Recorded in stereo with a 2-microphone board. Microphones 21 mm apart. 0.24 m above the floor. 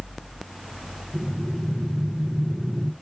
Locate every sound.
1.1 s breathing: 30° right (ahead or behind), 1.0 m